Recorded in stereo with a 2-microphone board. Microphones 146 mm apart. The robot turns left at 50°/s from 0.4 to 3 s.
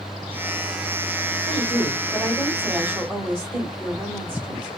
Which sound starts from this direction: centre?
A woman speaking, at 1.5 s.